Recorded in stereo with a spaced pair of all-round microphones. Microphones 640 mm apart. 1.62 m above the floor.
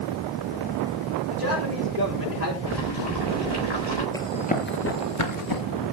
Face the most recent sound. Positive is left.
turn(degrees=35)  # may be behind; listen again after turning